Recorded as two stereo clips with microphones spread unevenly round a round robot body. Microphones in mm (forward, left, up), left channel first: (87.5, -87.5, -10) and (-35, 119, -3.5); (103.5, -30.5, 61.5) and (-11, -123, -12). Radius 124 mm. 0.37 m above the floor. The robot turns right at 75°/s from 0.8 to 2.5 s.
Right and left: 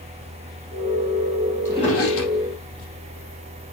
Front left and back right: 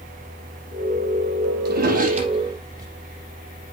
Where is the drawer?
140° right, 4 m; by 2.9 s 80° right, 4 m.